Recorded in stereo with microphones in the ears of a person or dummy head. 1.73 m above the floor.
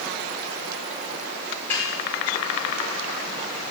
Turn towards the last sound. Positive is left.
turn(degrees=15)  # may be behind; listen again after turning